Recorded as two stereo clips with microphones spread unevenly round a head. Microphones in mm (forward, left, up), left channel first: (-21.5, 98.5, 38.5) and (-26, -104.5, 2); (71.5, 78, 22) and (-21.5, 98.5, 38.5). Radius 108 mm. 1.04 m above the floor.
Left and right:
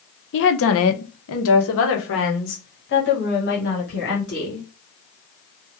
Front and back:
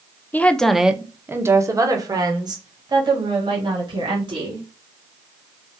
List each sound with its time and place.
0.3 s a woman speaking: 55° left, 0.8 m; by 4.6 s 135° left, 3 m